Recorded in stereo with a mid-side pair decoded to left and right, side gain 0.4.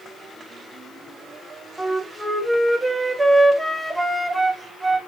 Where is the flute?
15° right, 1.2 m.